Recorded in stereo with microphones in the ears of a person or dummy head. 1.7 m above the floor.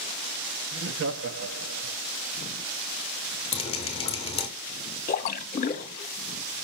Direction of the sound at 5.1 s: 40° left (ahead or behind).